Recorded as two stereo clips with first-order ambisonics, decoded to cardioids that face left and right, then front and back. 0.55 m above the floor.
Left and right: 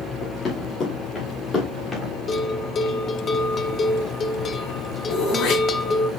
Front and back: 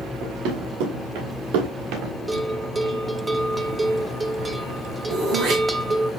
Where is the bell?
120° left, 0.7 m.